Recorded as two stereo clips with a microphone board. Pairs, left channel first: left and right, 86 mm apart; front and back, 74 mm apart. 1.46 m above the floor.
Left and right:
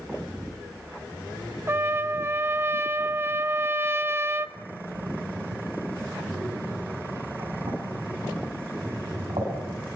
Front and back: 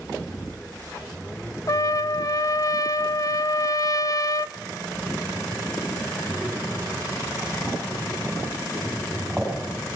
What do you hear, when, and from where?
1.7 s a trumpet: 30° right, 0.5 m
4.6 s breathing: 100° right, 7.5 m